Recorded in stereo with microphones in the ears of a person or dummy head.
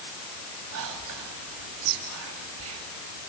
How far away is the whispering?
About 3 m.